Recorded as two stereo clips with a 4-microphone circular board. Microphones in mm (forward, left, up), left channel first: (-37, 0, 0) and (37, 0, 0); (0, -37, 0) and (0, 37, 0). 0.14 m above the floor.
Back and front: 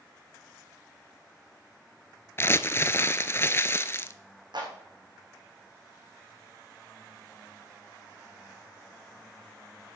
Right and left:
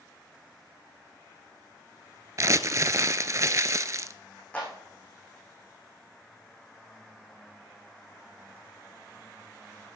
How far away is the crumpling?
About 0.7 m.